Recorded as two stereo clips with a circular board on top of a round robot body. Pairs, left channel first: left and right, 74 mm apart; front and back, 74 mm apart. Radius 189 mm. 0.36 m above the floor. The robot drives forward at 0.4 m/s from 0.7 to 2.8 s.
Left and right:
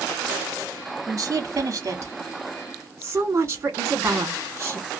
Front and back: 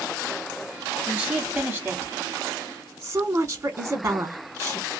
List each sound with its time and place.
1.1 s a woman speaking: 115° right, 1.3 m; by 4.9 s 145° right, 1.6 m